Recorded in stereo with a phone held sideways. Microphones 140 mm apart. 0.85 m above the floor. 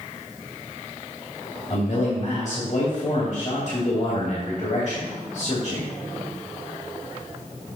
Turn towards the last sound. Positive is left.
turn(degrees=55)  # may be behind; listen again after turning